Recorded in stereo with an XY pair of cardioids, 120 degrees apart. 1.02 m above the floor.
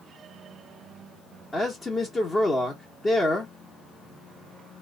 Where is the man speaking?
25° left, 1.0 m.